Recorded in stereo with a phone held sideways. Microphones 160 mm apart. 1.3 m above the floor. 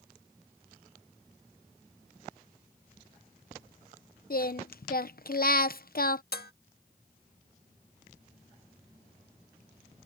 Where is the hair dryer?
I don't hear a hair dryer.